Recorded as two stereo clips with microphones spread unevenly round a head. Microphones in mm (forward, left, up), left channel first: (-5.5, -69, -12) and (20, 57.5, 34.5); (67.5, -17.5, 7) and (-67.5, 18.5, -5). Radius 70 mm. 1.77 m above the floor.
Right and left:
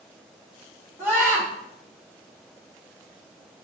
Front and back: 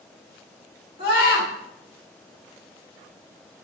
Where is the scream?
5° left, 3 m.